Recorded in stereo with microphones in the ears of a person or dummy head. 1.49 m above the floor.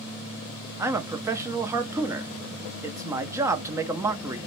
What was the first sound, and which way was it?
A man speaking, 15° right (ahead or behind).